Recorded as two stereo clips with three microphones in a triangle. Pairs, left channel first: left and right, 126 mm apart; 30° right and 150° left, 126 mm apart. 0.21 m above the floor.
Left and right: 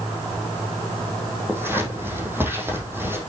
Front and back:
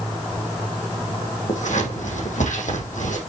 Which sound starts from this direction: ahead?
Scissors, at 1.5 s.